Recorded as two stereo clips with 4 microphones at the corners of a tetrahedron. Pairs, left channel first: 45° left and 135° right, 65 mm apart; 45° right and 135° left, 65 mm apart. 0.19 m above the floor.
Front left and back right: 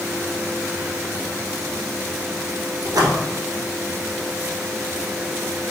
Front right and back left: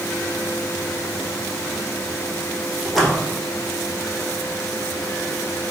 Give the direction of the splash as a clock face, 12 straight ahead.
4 o'clock.